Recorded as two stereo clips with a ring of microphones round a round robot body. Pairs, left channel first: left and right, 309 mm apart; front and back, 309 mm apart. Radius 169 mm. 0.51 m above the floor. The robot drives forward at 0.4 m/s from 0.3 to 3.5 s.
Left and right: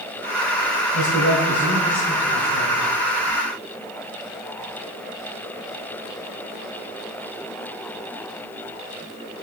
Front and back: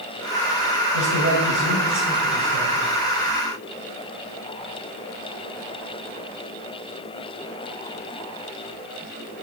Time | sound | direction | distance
0.9 | a man speaking | 145° left | 1.9 m